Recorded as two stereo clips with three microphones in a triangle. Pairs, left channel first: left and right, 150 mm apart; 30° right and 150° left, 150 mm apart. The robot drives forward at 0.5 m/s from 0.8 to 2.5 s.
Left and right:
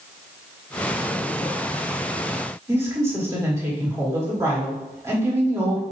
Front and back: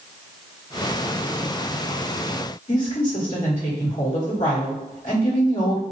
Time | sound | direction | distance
2.7 | a woman speaking | 25° right | 2 m